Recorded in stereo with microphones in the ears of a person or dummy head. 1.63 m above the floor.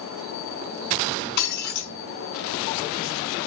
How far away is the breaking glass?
About 5.5 m.